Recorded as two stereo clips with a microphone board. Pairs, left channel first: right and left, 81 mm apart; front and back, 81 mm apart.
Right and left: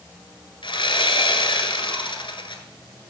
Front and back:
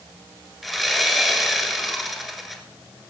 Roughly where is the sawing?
Right.